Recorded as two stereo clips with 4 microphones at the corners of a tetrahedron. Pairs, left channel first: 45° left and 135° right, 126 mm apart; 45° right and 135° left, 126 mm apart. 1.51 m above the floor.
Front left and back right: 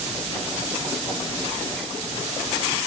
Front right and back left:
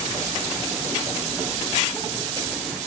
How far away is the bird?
No bird in this recording.